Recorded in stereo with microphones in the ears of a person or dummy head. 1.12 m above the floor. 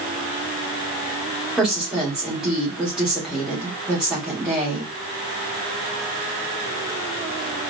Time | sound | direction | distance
1.6 | a woman speaking | 5° right (ahead or behind) | 2.0 m